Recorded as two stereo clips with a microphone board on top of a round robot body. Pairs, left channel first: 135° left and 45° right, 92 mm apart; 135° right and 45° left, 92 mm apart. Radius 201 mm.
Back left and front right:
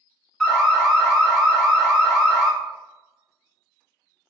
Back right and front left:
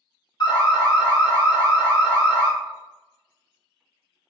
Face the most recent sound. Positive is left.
turn(degrees=-145)